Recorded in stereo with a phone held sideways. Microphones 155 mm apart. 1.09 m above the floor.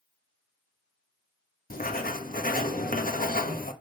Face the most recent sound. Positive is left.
turn(degrees=65)  # may be behind; listen again after turning